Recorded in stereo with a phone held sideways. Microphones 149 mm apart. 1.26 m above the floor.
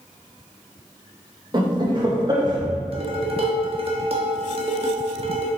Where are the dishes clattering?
45° right (ahead or behind), 1.2 m.